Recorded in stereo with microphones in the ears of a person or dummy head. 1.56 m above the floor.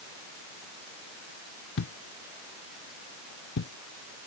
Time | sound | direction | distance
1.8 | a thud | 65° left (ahead or behind) | ?